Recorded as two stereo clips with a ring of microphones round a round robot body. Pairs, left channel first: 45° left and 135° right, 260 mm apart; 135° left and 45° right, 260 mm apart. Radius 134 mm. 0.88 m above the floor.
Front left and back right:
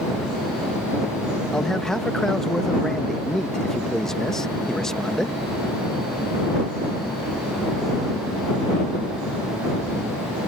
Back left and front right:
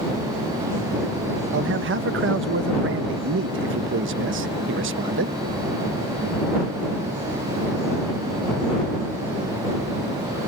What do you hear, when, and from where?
1.5 s a man speaking: 40° right